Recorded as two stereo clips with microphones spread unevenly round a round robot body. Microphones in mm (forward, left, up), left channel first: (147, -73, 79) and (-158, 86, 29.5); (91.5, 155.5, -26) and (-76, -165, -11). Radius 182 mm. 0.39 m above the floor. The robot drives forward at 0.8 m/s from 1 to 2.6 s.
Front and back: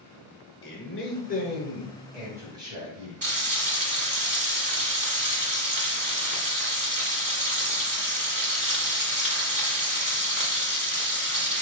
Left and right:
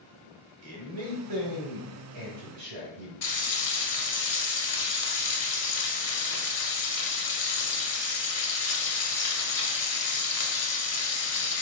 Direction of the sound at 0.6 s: 80° right.